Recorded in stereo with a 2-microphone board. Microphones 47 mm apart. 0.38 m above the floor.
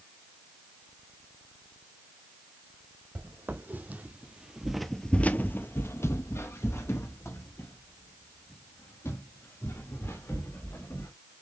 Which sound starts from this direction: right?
Footsteps, at 3.1 s.